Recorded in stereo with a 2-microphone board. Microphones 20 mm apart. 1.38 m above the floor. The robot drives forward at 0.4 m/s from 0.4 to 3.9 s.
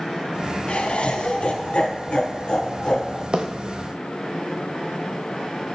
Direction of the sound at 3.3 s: 50° right (ahead or behind).